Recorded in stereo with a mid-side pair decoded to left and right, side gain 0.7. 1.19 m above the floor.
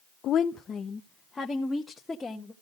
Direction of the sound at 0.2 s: 50° left.